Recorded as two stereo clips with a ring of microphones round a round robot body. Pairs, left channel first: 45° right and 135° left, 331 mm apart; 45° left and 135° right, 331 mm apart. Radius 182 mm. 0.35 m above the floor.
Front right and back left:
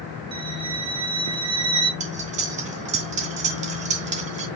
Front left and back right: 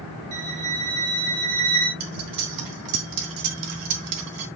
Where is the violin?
150° right, 1.9 m.